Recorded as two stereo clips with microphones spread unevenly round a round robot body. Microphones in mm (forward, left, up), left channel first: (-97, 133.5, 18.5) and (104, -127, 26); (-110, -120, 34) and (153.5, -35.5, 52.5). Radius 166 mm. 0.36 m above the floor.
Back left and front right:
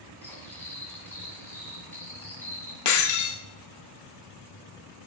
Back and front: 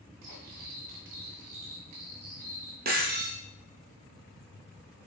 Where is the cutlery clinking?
45° left, 1.7 m.